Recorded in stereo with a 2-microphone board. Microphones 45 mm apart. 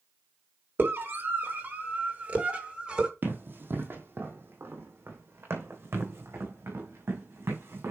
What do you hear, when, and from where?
0.8 s a scream: 50° right (ahead or behind), 3 m; by 3.1 s 20° right (ahead or behind), 2.5 m
3.2 s running footsteps: 50° right (ahead or behind), 2.5 m; by 7.9 s 70° right (ahead or behind), 4.5 m